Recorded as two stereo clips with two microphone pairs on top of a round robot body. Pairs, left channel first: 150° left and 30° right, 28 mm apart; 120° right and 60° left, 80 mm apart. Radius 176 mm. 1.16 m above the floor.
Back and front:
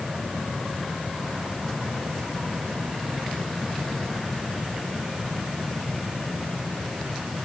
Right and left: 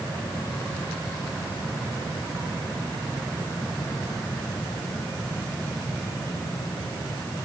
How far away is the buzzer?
No buzzer in this recording.